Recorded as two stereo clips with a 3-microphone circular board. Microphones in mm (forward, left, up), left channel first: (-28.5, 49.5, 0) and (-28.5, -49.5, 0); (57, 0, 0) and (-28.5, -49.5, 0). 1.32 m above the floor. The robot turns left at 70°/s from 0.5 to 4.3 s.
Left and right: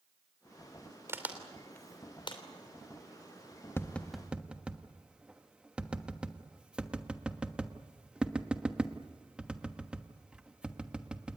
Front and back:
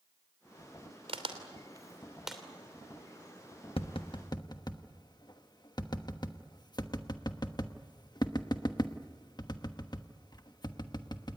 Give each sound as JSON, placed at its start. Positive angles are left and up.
{"t": 1.1, "sound": "a crack", "azimuth_deg": -150, "distance_m": 3.0}
{"t": 3.8, "sound": "tapping", "azimuth_deg": 25, "distance_m": 1.2}